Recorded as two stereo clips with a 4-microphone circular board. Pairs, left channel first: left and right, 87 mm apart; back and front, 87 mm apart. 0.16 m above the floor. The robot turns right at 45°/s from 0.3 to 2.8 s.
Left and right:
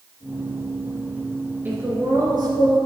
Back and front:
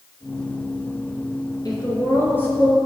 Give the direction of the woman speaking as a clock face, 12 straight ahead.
5 o'clock.